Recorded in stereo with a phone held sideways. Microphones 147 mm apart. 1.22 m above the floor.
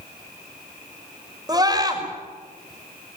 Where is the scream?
25° right (ahead or behind), 5.5 m.